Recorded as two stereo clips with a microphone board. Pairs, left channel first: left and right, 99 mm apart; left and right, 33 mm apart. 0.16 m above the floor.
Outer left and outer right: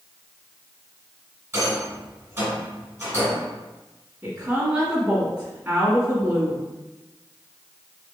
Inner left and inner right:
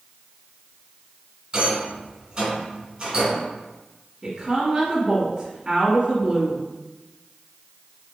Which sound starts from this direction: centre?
A woman speaking, at 4.2 s.